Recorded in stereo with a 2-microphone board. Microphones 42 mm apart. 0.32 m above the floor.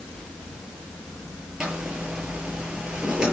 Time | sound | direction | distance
1.6 | a zipper | 15° right (ahead or behind) | 7.5 m